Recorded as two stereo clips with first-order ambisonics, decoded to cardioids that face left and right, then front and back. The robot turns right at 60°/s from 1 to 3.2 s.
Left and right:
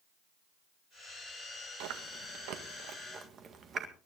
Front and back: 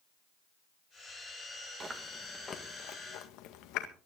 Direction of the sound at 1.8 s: 110° right.